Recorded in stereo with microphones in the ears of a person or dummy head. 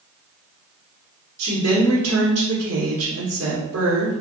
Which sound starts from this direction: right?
A woman speaking, at 1.4 s.